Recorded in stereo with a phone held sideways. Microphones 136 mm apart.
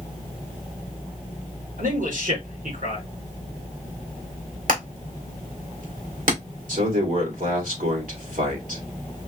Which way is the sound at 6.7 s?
70° right (ahead or behind).